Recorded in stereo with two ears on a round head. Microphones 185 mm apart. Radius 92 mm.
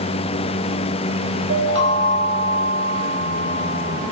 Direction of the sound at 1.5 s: 60° right (ahead or behind).